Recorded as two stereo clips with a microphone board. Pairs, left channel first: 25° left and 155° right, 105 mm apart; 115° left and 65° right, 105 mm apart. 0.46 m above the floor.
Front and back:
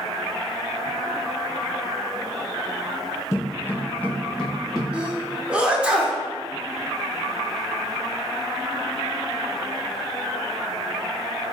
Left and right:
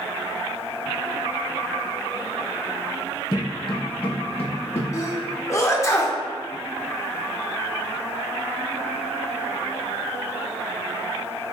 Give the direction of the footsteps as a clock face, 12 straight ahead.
10 o'clock.